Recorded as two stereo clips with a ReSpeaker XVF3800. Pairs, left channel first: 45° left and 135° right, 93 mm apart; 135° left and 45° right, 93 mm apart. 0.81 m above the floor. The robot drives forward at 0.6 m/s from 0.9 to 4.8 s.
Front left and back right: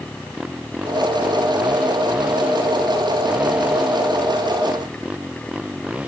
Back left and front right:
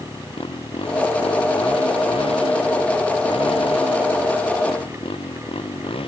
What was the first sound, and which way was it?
A motorcycle, 145° left.